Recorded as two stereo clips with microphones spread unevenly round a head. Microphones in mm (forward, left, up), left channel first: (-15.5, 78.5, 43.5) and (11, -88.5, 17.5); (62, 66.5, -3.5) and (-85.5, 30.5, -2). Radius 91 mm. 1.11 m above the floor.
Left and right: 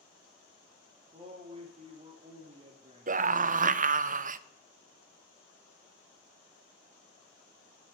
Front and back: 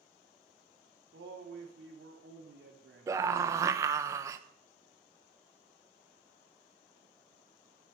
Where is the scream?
95° right, 0.8 m.